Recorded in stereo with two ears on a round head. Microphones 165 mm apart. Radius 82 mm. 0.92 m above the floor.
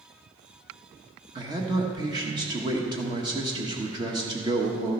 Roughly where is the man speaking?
Right.